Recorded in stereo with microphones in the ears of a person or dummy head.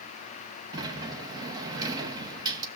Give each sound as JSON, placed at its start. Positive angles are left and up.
{"t": 0.7, "sound": "a sliding door", "side_deg": -20, "distance_m": 1.1}